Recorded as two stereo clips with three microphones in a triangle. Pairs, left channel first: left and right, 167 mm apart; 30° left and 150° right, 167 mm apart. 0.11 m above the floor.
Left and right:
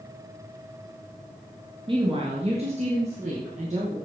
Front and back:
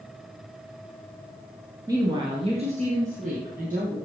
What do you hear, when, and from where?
1.9 s a woman speaking: 100° right, 1.7 m; by 4.0 s 130° right, 3.5 m